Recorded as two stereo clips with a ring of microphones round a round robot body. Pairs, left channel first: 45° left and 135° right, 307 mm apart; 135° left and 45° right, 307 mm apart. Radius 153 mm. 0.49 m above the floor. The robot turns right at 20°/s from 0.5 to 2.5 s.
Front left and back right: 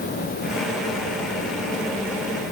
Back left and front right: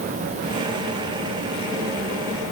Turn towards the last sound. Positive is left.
No sound to turn to.